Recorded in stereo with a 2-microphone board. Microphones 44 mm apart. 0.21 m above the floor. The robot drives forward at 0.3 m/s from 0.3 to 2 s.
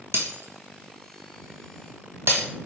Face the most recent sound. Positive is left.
turn(degrees=-60)  # may be behind; listen again after turning